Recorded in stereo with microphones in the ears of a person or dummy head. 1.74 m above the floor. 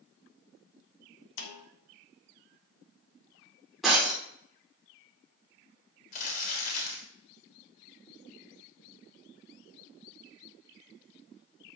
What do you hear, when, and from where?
1.4 s a snare drum: 65° left (ahead or behind), 1.1 m
3.8 s breaking glass: 5° right (ahead or behind), 3 m
6.1 s crumpling: 50° left (ahead or behind), 3 m